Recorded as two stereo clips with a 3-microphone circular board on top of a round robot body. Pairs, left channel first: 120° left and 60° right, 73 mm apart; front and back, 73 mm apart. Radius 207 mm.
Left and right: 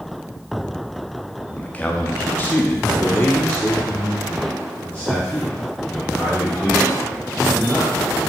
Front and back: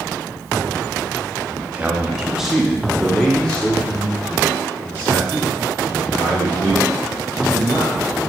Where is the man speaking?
165° left, 1.4 m; by 8.2 s 50° left, 4 m.